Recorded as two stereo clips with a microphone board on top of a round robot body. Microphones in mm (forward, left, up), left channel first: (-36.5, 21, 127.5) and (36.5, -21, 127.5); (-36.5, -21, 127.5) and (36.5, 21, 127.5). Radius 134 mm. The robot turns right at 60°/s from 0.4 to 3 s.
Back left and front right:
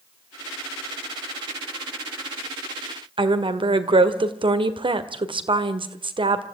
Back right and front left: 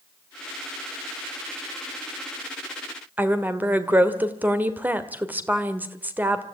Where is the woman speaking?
40° right, 1.8 m.